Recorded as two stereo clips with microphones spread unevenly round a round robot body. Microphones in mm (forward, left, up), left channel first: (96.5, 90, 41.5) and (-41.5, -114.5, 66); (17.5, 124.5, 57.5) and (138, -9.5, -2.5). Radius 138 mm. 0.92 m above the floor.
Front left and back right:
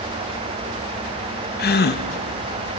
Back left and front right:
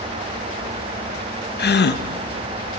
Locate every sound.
1.6 s a gasp: 95° left, 0.9 m